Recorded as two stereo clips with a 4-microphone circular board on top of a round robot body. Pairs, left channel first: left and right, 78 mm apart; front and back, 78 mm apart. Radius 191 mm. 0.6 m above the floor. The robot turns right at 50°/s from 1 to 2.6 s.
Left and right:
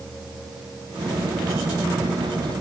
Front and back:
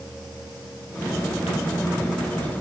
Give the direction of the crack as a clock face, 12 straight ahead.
I don't hear a crack.